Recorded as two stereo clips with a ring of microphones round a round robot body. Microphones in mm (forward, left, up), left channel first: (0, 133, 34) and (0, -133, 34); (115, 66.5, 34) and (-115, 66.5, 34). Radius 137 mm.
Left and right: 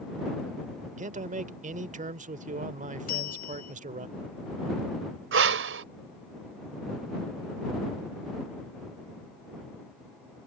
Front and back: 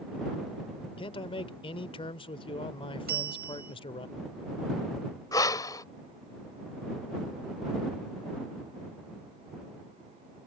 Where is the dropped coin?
No dropped coin in this recording.